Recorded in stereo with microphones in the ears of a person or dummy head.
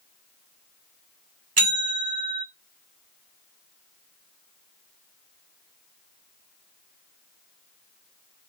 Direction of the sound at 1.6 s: 40° right (ahead or behind).